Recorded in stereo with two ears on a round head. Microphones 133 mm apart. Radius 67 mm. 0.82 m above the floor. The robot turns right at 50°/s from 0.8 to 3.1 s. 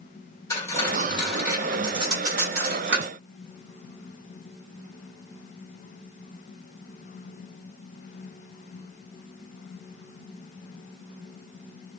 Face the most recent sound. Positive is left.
turn(degrees=-85)